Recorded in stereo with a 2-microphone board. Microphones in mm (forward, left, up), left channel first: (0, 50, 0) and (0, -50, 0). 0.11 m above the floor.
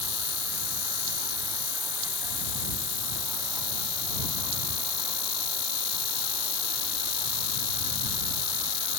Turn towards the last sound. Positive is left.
turn(degrees=-35)  # may be behind; listen again after turning